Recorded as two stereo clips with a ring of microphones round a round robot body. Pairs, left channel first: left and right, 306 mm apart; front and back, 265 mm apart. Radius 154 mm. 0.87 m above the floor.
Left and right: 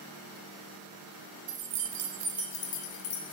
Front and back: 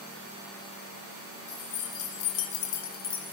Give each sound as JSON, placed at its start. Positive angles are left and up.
{"t": 1.5, "sound": "keys jangling", "azimuth_deg": -55, "distance_m": 0.9}